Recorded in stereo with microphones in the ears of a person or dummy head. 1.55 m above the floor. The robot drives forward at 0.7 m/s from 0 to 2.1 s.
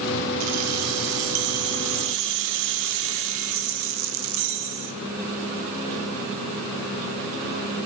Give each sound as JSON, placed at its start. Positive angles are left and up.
{"t": 0.4, "sound": "keys jangling", "side_deg": -70, "distance_m": 2.5}